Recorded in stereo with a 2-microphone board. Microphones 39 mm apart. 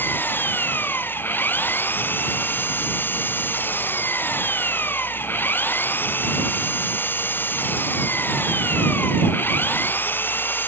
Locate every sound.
0.0 s an engine running: 65° left (ahead or behind)